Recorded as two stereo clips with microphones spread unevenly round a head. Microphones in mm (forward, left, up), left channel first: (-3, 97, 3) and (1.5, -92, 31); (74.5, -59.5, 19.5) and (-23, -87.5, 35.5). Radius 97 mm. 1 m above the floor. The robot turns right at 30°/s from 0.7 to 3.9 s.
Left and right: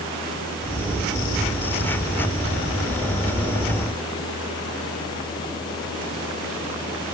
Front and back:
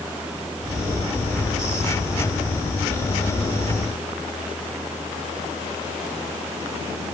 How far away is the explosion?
I don't hear an explosion.